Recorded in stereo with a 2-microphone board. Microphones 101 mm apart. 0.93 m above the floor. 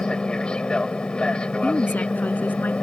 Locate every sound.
0.0 s an aircraft: 10° left (ahead or behind)
1.6 s a woman speaking: 15° left (ahead or behind)